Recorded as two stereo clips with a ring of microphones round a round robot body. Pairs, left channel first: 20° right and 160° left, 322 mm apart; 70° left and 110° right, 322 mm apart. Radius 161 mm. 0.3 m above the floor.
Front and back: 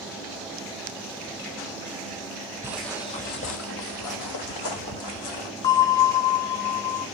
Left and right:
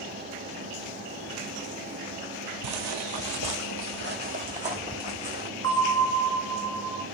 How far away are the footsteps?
About 0.6 m.